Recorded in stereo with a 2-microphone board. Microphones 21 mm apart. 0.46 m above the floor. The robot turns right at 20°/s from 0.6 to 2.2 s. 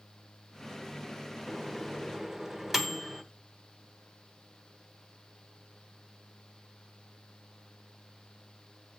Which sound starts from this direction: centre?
A microwave, at 1.5 s.